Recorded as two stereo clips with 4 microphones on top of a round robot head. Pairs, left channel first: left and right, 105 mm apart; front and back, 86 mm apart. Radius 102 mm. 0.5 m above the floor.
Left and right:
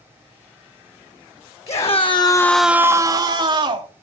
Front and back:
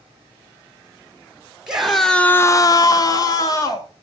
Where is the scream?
95° left, 1.5 m; by 3.9 s 55° right, 2.5 m.